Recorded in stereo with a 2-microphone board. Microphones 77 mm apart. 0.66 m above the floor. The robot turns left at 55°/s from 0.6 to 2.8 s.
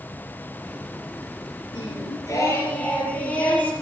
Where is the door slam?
I don't hear a door slam.